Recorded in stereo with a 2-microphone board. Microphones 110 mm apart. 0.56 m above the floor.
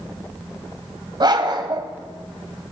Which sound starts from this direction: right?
A dog barking, at 1.2 s.